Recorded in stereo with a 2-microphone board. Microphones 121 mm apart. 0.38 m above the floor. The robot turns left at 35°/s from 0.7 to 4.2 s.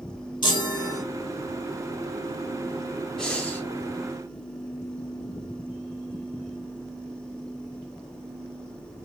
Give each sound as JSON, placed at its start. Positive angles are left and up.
{"t": 0.4, "sound": "a chime", "side_deg": 40, "distance_m": 0.7}
{"t": 3.2, "sound": "breathing", "side_deg": 5, "distance_m": 0.8}